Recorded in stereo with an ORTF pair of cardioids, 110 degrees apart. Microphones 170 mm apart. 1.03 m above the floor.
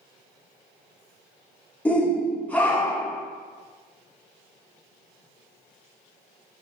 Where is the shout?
10° left, 0.8 m.